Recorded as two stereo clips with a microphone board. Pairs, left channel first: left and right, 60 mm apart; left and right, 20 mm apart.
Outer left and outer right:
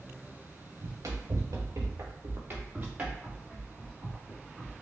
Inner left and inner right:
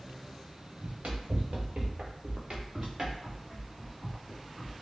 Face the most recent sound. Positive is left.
turn(degrees=5)  # may be behind; listen again after turning